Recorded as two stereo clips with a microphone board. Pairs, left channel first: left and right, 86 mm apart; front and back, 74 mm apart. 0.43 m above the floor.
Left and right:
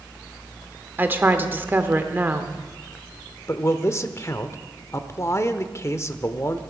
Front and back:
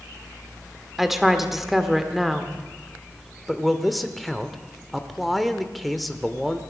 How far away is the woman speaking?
About 1.0 m.